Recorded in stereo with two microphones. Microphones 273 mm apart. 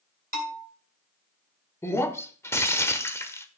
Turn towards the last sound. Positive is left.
turn(degrees=10)  # may be behind; listen again after turning